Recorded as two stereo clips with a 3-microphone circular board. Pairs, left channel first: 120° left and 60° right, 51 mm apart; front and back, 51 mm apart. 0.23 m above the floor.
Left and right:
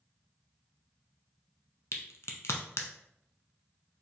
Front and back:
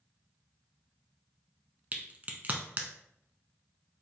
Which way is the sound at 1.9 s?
125° left.